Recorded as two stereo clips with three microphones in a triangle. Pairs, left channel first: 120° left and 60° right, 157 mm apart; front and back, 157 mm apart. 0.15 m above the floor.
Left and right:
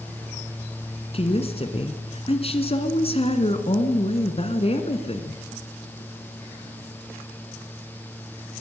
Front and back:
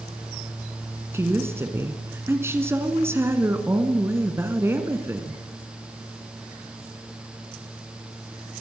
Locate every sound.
1.1 s a woman speaking: 115° left, 1.7 m